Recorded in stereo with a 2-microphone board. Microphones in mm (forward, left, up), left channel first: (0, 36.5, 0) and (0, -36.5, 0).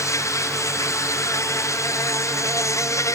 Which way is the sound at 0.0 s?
45° left (ahead or behind).